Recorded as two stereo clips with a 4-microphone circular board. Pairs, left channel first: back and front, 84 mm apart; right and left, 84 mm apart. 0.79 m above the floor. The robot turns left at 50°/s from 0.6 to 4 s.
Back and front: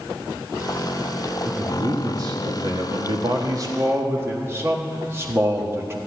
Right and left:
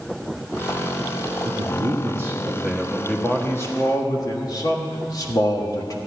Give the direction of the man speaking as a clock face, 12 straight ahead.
10 o'clock.